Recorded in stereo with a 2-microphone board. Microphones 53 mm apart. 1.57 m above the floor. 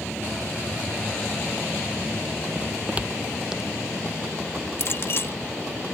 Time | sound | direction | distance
2.5 | footsteps | 30° right (ahead or behind) | ?
4.8 | a clink | 50° left (ahead or behind) | ?